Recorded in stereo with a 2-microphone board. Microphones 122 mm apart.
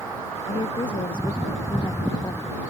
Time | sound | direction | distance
0.5 | a woman speaking | 45° left (ahead or behind) | ?